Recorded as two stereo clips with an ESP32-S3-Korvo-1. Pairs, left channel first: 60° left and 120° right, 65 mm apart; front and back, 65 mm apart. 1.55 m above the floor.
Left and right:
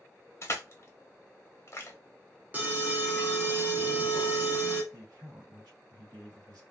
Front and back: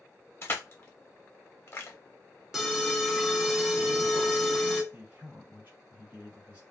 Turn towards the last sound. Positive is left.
turn(degrees=-115)